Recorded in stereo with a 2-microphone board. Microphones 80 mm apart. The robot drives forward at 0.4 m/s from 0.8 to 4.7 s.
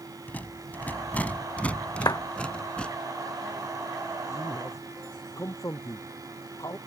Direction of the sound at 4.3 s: 45° left (ahead or behind).